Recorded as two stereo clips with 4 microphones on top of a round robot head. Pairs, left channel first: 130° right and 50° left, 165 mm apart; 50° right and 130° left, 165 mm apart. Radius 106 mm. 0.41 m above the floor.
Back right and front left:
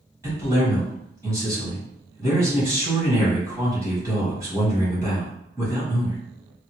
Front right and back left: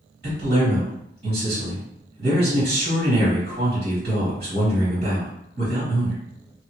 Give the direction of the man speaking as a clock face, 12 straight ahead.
8 o'clock.